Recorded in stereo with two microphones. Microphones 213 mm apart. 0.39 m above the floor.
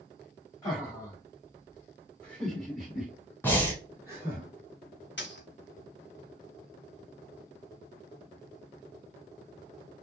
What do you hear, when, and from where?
0.6 s laughter: 20° left (ahead or behind), 1.8 m; by 4.4 s 15° right (ahead or behind), 2 m
3.4 s breathing: 10° left (ahead or behind), 1.0 m
5.2 s a dropped coin: 60° left (ahead or behind), 1.0 m